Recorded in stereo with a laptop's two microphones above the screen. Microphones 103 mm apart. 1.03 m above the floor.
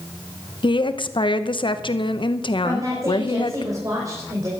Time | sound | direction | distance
0.6 | a woman speaking | 55° left (ahead or behind) | 0.8 m
2.6 | a woman speaking | 35° right (ahead or behind) | 5 m